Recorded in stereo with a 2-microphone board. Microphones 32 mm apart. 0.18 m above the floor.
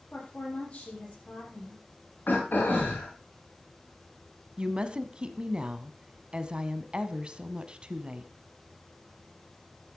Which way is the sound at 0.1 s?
40° left (ahead or behind).